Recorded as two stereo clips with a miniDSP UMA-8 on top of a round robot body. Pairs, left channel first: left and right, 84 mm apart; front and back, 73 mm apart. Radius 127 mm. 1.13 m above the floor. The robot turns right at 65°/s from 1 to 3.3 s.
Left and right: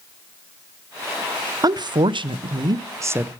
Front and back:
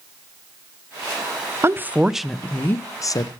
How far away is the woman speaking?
About 0.8 m.